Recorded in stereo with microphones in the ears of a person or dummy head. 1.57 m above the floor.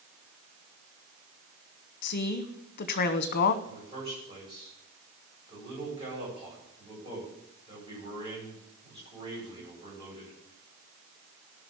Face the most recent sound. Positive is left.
turn(degrees=-25)  # may be behind; listen again after turning